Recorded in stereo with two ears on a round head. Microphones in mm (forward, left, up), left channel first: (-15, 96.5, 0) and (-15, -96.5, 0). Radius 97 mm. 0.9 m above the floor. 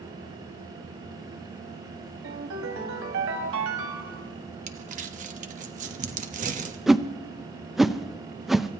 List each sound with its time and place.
2.2 s a ringtone: 75° right (ahead or behind), 2 m
4.7 s crumpling: 40° right (ahead or behind), 1.2 m
6.9 s a whoosh: centre (ahead or behind), 0.5 m